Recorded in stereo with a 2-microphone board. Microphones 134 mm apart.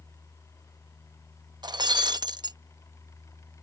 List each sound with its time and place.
1.6 s breaking glass: 30° right (ahead or behind)